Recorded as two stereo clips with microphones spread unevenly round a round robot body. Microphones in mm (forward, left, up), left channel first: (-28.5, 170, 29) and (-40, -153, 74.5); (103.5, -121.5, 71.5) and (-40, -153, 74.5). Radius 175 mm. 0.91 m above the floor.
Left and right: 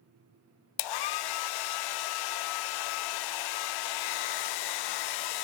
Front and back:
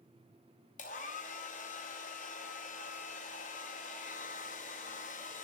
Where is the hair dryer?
70° left, 0.5 m.